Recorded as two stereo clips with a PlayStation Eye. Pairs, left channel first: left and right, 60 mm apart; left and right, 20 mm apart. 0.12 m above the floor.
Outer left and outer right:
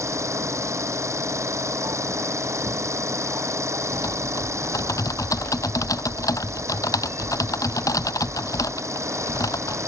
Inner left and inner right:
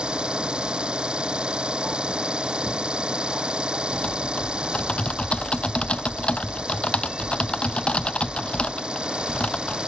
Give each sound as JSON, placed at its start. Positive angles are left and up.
{"t": 0.0, "sound": "an engine running", "side_deg": -55}
{"t": 3.9, "sound": "typing on a keyboard", "side_deg": 75}